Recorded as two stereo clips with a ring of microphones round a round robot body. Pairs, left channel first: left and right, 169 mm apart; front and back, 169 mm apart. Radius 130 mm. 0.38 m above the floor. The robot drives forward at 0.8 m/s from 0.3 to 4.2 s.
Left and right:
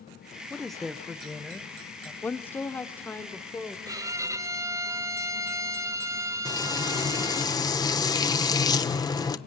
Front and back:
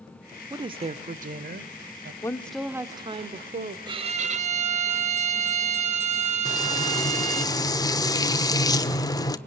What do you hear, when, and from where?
0.5 s a woman speaking: 175° left, 0.8 m; by 2.1 s straight behind, 1.7 m
2.2 s a woman speaking: 30° left, 0.9 m; by 3.8 s 170° left, 1.3 m
3.9 s a violin: 140° right, 0.7 m; by 7.5 s 155° right, 0.9 m
6.5 s frying: 45° left, 1.1 m